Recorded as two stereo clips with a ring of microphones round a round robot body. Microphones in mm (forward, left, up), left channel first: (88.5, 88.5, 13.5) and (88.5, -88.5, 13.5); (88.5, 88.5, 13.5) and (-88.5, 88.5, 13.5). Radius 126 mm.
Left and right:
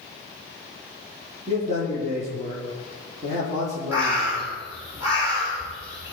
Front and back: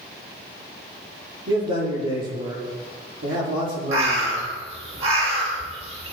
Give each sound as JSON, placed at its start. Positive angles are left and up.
{"t": 1.5, "sound": "a man speaking", "azimuth_deg": -155, "distance_m": 9.5}
{"t": 3.9, "sound": "a bird", "azimuth_deg": -170, "distance_m": 5.0}